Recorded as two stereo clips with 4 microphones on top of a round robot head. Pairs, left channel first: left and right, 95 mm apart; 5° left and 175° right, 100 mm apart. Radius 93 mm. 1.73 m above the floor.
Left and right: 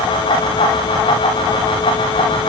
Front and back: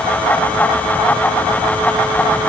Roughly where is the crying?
I don't hear crying.